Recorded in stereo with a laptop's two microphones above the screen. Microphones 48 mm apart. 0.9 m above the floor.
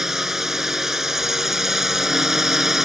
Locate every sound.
0.0 s a drone: 10° right (ahead or behind)